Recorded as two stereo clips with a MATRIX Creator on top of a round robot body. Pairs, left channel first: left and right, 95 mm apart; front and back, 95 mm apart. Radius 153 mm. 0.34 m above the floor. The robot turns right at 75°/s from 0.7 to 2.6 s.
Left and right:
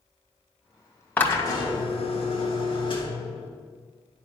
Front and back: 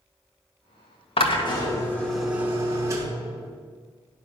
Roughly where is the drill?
Ahead.